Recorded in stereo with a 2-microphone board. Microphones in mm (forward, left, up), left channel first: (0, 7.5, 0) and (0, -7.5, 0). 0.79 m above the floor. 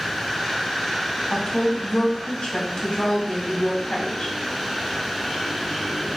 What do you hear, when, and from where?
1.3 s a woman speaking: 75° left (ahead or behind), 2.5 m